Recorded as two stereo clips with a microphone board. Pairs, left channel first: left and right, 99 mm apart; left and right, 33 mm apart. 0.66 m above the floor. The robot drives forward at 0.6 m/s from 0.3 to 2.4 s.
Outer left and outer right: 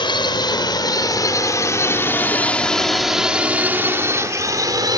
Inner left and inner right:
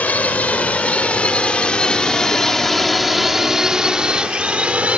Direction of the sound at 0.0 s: 50° left (ahead or behind).